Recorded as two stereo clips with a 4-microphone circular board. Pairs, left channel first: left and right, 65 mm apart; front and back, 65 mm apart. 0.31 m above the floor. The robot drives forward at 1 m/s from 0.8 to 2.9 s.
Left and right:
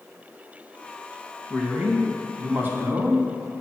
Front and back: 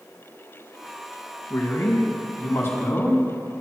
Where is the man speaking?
25° right, 3 m; by 3.2 s 50° right, 2 m.